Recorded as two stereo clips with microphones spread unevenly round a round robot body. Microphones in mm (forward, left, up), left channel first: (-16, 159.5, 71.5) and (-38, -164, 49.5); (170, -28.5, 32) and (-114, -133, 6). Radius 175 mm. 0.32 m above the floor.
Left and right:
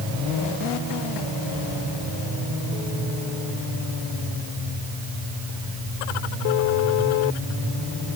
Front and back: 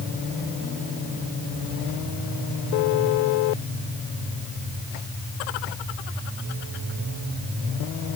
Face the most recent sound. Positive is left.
No sound to turn to.